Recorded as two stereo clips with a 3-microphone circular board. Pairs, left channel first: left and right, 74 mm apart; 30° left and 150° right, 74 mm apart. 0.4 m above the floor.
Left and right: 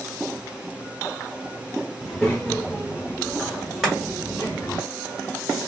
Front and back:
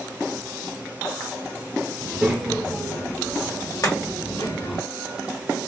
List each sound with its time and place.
2.0 s a child speaking: 175° left, 1.0 m; by 4.8 s 30° left, 1.8 m
3.8 s chopping: 5° right, 1.5 m